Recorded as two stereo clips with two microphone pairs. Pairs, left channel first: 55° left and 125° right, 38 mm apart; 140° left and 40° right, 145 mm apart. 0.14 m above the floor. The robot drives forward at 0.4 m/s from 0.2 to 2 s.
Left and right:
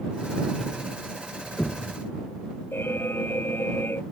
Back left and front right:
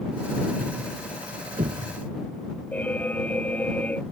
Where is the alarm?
60° left.